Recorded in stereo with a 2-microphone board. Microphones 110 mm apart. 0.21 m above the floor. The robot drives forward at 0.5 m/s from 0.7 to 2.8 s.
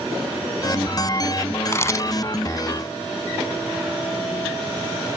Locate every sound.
1.7 s a camera shutter: 25° left (ahead or behind); by 2.1 s 30° left (ahead or behind)